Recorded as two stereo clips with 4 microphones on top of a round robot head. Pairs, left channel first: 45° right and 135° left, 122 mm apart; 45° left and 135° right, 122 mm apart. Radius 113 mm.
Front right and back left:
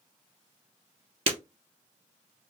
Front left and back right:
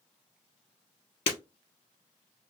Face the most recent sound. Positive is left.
turn(degrees=90)